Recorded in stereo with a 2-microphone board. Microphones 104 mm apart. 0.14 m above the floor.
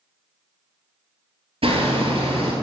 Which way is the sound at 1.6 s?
65° right (ahead or behind).